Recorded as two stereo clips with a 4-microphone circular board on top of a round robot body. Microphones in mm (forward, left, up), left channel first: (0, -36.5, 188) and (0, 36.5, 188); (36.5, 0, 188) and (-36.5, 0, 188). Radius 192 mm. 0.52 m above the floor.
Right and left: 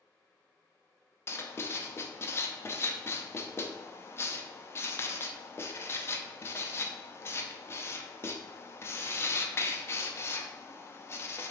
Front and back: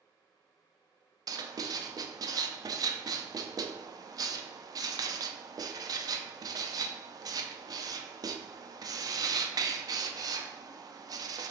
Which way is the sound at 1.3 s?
145° right.